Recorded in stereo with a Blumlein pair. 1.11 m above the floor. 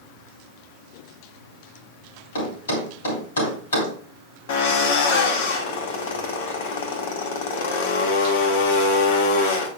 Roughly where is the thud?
Ahead left.